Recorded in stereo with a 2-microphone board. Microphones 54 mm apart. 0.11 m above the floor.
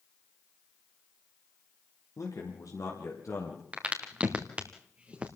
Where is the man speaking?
70° left (ahead or behind), 4.5 m; by 3.6 s 65° left (ahead or behind), 4 m.